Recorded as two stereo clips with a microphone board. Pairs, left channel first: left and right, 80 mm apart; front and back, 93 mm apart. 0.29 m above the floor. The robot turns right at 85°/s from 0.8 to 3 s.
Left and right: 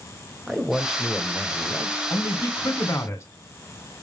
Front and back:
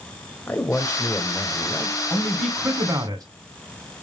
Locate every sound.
0.5 s a man speaking: 15° right, 1.0 m; by 2.0 s 85° left, 1.0 m
2.1 s a man speaking: 60° left, 1.9 m; by 3.2 s 140° left, 1.9 m